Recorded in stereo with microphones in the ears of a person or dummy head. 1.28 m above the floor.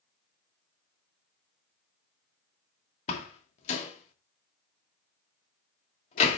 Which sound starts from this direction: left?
A door slam, at 3.1 s.